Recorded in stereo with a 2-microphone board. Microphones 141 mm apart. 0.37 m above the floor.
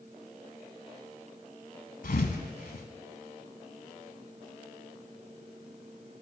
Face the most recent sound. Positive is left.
turn(degrees=80)